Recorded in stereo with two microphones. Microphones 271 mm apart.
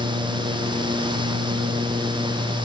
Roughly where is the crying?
I don't hear crying.